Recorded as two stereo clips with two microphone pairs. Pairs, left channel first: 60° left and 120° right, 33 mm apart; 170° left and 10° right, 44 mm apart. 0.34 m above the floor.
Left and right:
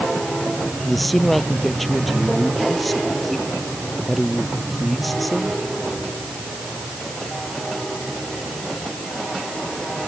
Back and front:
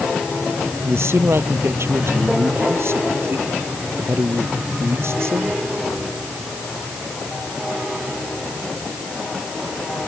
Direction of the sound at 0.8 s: 25° right.